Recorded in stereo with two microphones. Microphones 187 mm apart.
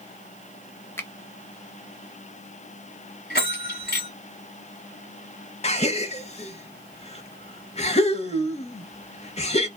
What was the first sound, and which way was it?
A finger snap, 15° left (ahead or behind).